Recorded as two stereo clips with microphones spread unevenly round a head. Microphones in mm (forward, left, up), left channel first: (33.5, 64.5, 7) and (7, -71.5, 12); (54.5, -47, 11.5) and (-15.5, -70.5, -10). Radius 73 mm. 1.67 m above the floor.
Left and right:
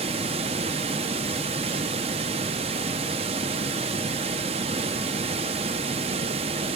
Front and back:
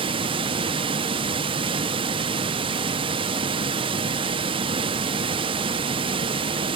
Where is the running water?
150° right, 0.9 m.